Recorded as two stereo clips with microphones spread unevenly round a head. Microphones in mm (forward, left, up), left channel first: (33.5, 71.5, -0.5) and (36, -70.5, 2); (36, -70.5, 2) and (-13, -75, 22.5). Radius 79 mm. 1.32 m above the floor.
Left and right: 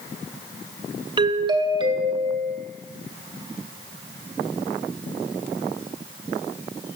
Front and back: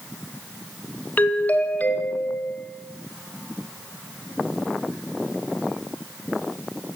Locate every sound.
1.2 s a doorbell: 35° right, 1.0 m